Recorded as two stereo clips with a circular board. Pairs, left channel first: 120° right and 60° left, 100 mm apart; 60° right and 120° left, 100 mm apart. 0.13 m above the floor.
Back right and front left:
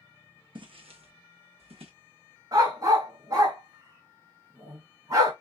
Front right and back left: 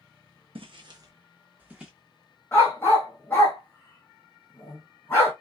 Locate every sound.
0.6 s footsteps: 95° left, 0.5 m; by 1.9 s 35° left, 0.8 m
2.5 s a dog barking: 10° left, 1.3 m